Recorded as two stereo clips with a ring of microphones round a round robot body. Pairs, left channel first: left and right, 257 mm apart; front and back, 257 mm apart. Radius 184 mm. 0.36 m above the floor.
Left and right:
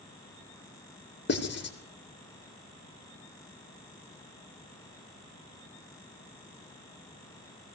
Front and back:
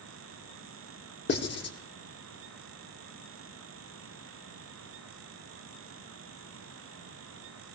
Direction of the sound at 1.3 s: 45° left.